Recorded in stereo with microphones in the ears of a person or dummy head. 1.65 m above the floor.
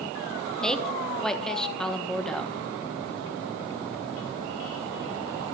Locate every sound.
0.6 s a woman speaking: centre (ahead or behind), 1.2 m